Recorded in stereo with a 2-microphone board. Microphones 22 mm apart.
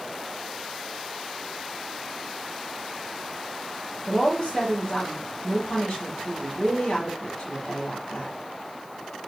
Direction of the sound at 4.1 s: 40° left (ahead or behind).